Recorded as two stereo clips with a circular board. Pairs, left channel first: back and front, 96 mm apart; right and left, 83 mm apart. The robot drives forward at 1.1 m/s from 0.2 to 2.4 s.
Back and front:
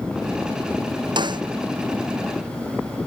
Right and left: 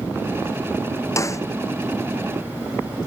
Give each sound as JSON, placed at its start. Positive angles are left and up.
{"t": 1.2, "sound": "a snare drum", "azimuth_deg": -35}